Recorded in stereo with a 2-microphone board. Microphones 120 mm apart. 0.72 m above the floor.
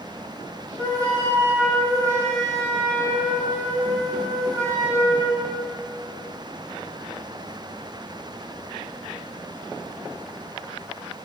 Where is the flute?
25° right (ahead or behind), 8.5 m.